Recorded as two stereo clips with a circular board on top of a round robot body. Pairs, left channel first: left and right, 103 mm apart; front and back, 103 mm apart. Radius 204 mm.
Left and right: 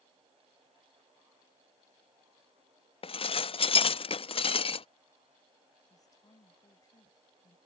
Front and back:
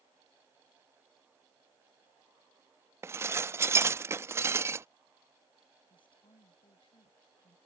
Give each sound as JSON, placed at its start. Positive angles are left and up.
{"t": 3.0, "sound": "dishes clattering", "azimuth_deg": 115}
{"t": 5.9, "sound": "a woman speaking", "azimuth_deg": 35}